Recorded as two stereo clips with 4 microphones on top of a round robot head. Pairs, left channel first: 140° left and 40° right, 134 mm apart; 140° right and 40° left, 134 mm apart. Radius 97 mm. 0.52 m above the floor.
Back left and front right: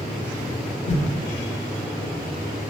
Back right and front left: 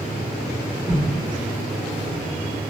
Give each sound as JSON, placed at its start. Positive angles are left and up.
{"t": 0.9, "sound": "a whoosh", "azimuth_deg": 125, "distance_m": 1.6}